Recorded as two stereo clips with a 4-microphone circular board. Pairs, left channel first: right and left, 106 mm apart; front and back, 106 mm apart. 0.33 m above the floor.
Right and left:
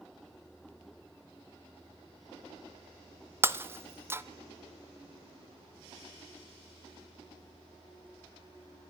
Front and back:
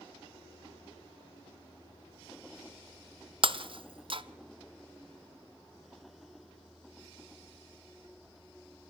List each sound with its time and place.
3.4 s breaking glass: 155° left, 0.6 m